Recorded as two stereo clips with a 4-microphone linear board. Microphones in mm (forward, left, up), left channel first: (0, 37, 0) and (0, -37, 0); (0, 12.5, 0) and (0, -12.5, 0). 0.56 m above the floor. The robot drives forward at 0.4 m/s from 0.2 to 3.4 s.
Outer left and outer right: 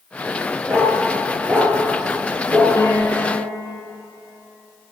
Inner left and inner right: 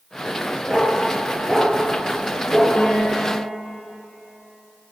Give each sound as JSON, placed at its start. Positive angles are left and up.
{"t": 0.7, "sound": "a dog barking", "side_deg": -35, "distance_m": 3.0}
{"t": 2.8, "sound": "a piano", "side_deg": 45, "distance_m": 2.0}